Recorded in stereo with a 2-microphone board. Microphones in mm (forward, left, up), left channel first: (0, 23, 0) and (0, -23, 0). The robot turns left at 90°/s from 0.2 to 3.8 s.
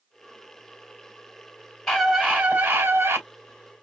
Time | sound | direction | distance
1.9 | a scream | 10° left | 3 m